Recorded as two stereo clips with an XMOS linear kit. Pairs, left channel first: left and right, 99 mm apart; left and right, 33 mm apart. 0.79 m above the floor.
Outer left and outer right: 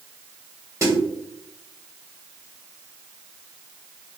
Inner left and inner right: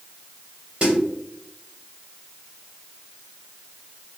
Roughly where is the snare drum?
Right.